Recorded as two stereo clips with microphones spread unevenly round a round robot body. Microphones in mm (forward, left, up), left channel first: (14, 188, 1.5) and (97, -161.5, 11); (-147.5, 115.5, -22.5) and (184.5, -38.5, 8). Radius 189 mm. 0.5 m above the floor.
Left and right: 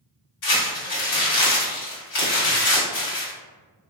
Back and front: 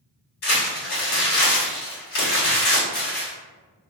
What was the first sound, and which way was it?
Crumpling, 125° left.